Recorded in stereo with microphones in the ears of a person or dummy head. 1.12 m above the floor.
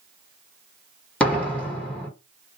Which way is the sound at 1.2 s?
5° left (ahead or behind).